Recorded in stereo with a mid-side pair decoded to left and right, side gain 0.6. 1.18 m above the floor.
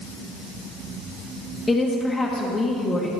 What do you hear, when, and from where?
1.7 s a woman speaking: 20° left, 1.2 m